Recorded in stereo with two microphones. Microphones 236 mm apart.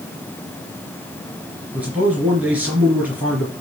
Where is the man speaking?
5° right (ahead or behind), 3 m.